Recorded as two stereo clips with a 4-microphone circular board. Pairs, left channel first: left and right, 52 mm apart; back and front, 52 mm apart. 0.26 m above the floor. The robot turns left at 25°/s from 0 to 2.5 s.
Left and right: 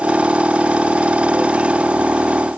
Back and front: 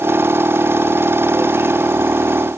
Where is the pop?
No pop in this recording.